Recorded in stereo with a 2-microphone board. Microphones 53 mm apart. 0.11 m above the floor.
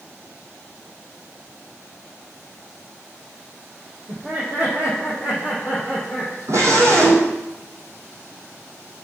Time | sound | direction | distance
4.1 | laughter | 35° right (ahead or behind) | 4.5 m
6.5 | a scream | 65° right (ahead or behind) | 4 m